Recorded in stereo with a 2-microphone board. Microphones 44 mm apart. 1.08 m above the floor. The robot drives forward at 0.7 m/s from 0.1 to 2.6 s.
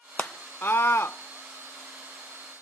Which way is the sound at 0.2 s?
35° left (ahead or behind).